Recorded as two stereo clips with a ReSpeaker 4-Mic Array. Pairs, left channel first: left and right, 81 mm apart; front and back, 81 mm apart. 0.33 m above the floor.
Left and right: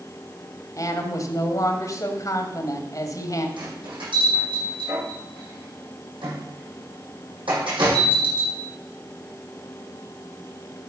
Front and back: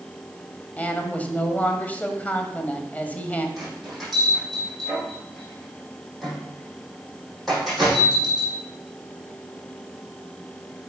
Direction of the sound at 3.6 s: 90° right.